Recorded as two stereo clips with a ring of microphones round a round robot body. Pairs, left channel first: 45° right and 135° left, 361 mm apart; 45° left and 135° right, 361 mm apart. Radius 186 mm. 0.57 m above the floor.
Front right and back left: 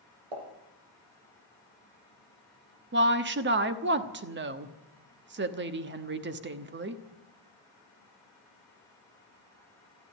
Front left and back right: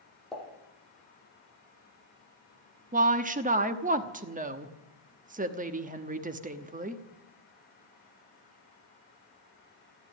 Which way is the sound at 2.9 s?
170° left.